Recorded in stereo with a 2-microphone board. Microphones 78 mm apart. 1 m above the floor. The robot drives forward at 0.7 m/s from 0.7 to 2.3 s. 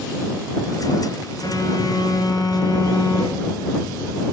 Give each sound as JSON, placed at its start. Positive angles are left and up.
{"t": 1.4, "sound": "a phone buzzing", "side_deg": 55, "distance_m": 3.5}